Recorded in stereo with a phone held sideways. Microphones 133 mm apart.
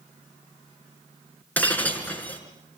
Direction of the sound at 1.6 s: 10° left (ahead or behind).